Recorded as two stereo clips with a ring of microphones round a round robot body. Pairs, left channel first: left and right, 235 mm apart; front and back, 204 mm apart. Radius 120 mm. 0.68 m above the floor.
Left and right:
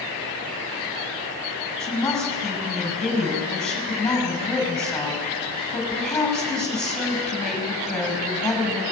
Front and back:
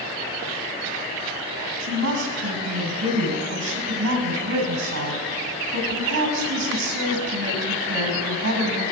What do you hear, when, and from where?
1.8 s a woman speaking: 175° left, 5.5 m